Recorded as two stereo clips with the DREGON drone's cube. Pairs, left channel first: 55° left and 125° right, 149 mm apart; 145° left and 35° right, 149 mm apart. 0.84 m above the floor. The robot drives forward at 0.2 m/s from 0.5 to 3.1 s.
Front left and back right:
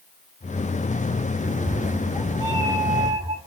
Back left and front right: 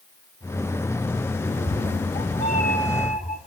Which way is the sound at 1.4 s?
170° left.